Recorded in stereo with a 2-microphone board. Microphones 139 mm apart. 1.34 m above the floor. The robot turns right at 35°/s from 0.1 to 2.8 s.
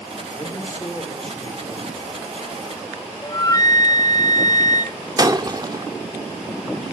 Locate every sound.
0.3 s a man speaking: 145° left, 5 m; by 3.1 s 130° right, 5 m
3.2 s a flute: 30° left (ahead or behind), 0.7 m
5.2 s breaking glass: 30° right (ahead or behind), 1.5 m